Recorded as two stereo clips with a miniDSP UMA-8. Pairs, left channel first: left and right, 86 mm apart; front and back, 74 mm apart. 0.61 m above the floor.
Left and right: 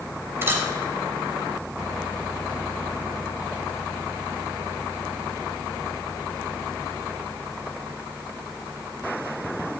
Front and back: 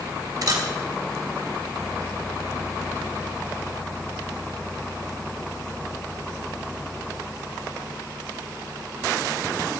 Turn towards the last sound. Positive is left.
turn(degrees=-150)